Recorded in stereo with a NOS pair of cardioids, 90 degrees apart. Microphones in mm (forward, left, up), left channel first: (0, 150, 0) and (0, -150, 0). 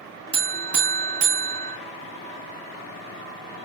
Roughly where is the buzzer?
Ahead right.